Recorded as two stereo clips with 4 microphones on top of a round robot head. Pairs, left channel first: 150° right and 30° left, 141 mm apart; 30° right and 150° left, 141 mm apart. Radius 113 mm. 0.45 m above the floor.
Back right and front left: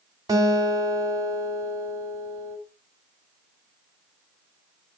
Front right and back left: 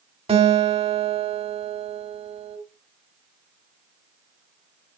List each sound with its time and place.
0.3 s a guitar: 100° left, 3.5 m